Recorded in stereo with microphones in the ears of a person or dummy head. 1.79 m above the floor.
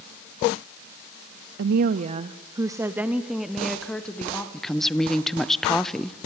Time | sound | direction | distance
1.6 | a woman speaking | 55° right (ahead or behind) | 0.6 m
4.5 | a woman speaking | centre (ahead or behind) | 0.8 m